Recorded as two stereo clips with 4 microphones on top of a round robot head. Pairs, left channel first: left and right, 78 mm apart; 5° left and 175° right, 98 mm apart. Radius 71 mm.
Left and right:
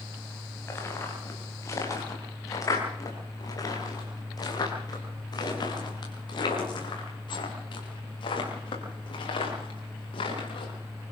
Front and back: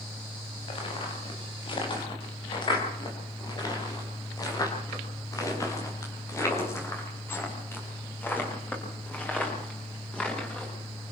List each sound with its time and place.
0.7 s footsteps: 35° left, 8 m; by 11.1 s 85° left, 9.5 m